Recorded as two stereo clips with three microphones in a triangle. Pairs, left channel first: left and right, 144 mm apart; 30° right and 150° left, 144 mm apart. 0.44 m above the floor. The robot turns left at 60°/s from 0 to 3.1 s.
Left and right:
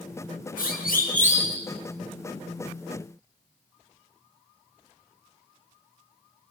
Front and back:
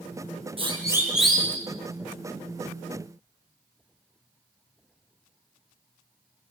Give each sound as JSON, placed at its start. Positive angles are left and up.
{"t": 0.6, "sound": "a siren", "azimuth_deg": 100, "distance_m": 6.0}